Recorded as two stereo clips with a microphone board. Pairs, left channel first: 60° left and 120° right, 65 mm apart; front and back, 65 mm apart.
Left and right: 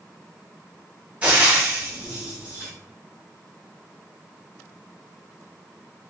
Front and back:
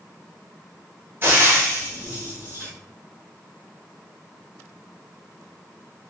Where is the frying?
170° right, 1.1 m.